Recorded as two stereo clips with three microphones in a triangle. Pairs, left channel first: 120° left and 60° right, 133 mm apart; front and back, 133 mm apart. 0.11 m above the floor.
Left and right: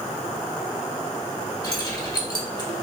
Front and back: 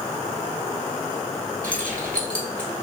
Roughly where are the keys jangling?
Left.